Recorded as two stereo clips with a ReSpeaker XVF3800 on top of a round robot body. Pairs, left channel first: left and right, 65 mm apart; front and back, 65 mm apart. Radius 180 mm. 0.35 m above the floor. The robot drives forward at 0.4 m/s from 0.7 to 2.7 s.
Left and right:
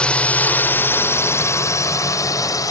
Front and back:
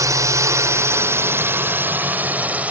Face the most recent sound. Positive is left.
turn(degrees=110)